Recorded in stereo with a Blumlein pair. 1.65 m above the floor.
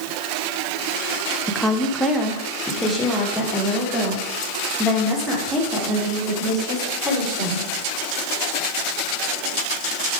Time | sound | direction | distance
1.5 | a woman speaking | straight ahead | 0.9 m